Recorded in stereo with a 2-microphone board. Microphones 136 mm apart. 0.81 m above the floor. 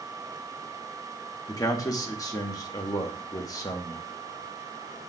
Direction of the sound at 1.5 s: 25° left (ahead or behind).